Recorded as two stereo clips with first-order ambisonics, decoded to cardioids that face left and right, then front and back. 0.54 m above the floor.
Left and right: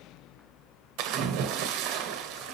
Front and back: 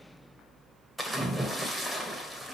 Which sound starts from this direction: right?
A splash, at 1.0 s.